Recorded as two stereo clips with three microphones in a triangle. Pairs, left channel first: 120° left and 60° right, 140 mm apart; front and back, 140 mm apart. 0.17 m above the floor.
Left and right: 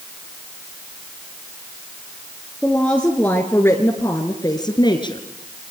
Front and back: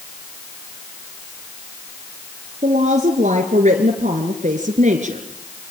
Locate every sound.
2.6 s a woman speaking: 155° right, 2.5 m; by 5.2 s 170° left, 2.5 m